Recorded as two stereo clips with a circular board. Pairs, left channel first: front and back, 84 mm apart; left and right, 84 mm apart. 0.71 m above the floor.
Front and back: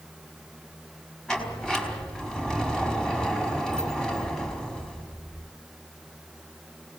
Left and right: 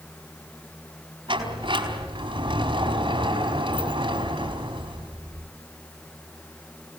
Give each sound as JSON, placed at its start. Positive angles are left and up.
{"t": 1.3, "sound": "a sliding door", "azimuth_deg": -85, "distance_m": 5.0}